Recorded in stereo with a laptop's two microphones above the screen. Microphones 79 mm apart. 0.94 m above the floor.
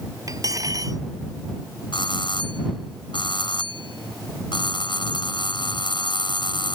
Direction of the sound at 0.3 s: 45° right (ahead or behind).